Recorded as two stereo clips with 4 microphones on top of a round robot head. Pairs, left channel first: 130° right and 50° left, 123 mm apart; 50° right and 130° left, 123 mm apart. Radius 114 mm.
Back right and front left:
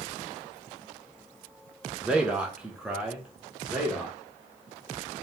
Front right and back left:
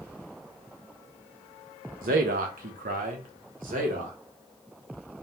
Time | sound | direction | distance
2.0 | a man speaking | 130° left | 0.5 m